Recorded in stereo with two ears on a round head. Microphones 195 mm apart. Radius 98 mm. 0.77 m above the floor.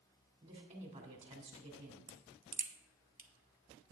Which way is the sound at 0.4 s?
30° right (ahead or behind).